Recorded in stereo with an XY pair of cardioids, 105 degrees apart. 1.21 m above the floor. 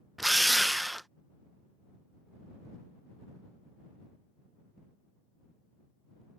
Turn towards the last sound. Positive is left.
turn(degrees=-5)